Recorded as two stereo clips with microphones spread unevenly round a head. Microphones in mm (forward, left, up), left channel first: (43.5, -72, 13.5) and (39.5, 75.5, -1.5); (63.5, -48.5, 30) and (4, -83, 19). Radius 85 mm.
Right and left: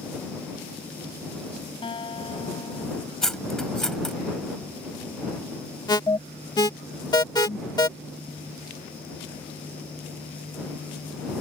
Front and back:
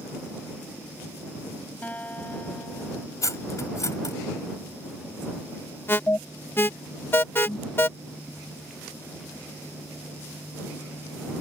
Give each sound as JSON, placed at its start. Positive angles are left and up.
{"t": 1.8, "sound": "a guitar", "azimuth_deg": -35}
{"t": 3.2, "sound": "cutlery clinking", "azimuth_deg": -5}
{"t": 5.9, "sound": "an alarm", "azimuth_deg": -25}